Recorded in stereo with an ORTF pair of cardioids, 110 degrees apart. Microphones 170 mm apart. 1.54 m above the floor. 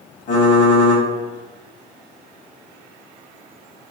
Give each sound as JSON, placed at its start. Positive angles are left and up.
{"t": 0.3, "sound": "typing on a keyboard", "azimuth_deg": 60, "distance_m": 1.2}